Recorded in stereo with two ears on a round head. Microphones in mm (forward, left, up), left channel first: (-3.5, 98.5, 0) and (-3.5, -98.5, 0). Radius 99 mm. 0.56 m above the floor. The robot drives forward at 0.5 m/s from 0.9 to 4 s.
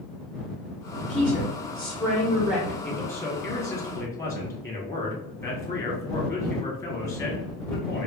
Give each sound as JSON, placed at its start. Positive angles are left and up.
{"t": 1.1, "sound": "a woman speaking", "side_deg": -5, "distance_m": 0.8}
{"t": 2.8, "sound": "a man speaking", "side_deg": 10, "distance_m": 1.3}